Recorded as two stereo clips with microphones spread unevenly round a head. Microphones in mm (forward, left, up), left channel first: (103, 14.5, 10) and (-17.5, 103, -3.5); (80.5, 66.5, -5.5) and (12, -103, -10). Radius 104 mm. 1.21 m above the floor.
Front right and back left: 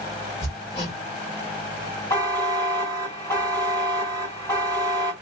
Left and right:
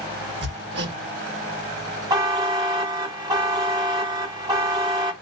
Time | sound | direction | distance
0.4 | hammering | 95° right | 1.4 m
2.1 | a buzzer | 75° right | 1.0 m